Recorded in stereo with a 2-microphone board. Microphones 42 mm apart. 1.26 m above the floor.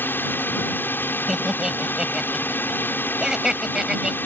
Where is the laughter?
10° right (ahead or behind).